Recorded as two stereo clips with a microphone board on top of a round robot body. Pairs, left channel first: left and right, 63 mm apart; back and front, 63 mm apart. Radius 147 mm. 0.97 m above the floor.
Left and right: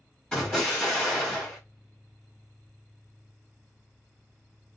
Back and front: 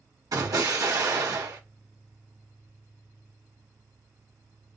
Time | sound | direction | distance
0.3 | an explosion | 15° left | 1.7 m